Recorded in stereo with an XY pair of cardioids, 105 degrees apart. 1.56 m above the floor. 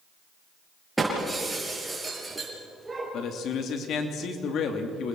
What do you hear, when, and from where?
1.0 s breaking glass: 15° right, 6.5 m
3.1 s a man speaking: 65° left, 3 m